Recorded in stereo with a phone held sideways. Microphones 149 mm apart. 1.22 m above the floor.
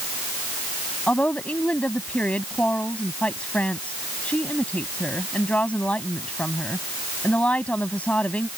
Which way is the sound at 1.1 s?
10° left (ahead or behind).